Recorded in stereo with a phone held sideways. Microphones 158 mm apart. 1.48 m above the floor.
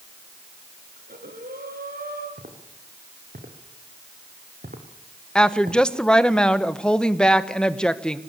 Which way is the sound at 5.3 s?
5° left (ahead or behind).